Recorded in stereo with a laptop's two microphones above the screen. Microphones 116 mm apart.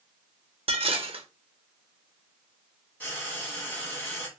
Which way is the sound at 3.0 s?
10° left (ahead or behind).